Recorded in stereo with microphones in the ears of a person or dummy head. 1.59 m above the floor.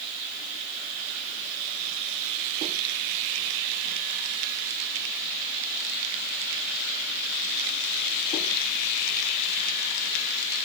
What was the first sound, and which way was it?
Only background noise.